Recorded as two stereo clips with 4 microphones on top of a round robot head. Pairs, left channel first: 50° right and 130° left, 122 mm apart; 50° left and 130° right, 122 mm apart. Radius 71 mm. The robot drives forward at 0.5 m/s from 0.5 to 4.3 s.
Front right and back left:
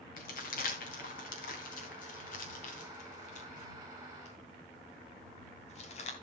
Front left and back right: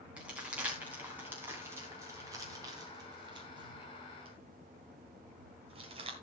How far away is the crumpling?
About 3.5 m.